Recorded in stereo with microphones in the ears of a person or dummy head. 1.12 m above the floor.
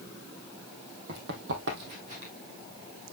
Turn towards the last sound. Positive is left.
turn(degrees=-30)  # may be behind; listen again after turning